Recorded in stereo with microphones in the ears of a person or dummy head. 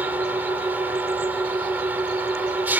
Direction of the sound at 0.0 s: 10° right (ahead or behind).